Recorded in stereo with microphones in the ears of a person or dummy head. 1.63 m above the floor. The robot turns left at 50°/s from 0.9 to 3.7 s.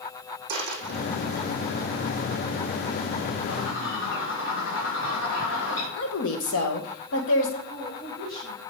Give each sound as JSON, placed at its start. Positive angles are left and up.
{"t": 0.5, "sound": "a dropped coin", "side_deg": -55, "distance_m": 4.0}
{"t": 3.5, "sound": "a bird", "side_deg": 80, "distance_m": 4.5}
{"t": 6.0, "sound": "a woman speaking", "side_deg": 85, "distance_m": 1.7}
{"t": 7.7, "sound": "a woman speaking", "side_deg": 25, "distance_m": 4.0}